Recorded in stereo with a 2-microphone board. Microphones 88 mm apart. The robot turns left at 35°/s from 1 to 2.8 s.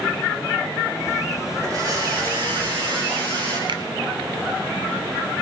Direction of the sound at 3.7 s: 60° right (ahead or behind).